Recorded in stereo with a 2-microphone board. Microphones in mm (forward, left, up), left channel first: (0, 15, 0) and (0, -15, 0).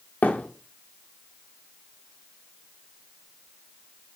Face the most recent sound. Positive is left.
turn(degrees=75)  # may be behind; listen again after turning